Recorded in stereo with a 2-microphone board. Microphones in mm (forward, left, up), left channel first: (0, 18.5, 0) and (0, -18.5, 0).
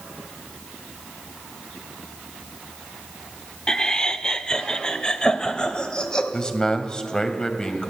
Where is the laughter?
15° left (ahead or behind), 0.9 m; by 6.2 s 20° left (ahead or behind), 2.5 m.